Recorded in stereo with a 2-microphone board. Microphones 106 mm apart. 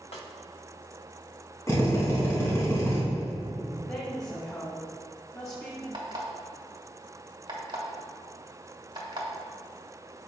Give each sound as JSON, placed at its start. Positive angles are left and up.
{"t": 0.1, "sound": "a snare drum", "side_deg": 80, "distance_m": 1.1}
{"t": 1.7, "sound": "a drill", "side_deg": 30, "distance_m": 2.5}
{"t": 3.9, "sound": "a woman speaking", "side_deg": 30, "distance_m": 1.5}
{"t": 5.9, "sound": "an alarm clock", "side_deg": -45, "distance_m": 1.8}